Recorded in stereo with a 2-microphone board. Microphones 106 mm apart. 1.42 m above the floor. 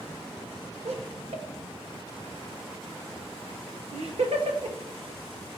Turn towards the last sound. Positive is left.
turn(degrees=-80)